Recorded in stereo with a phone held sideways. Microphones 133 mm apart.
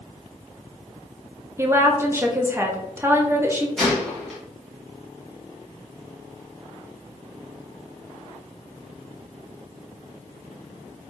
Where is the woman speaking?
20° right (ahead or behind), 0.7 m.